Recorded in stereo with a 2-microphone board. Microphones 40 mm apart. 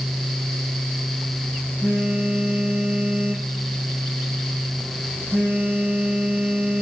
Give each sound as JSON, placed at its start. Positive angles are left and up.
{"t": 1.8, "sound": "a phone buzzing", "side_deg": 15, "distance_m": 4.5}